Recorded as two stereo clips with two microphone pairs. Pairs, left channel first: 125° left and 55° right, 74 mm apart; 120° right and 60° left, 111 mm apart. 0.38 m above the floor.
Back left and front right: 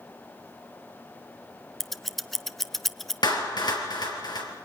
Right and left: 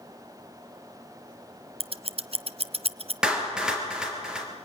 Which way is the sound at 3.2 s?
145° left.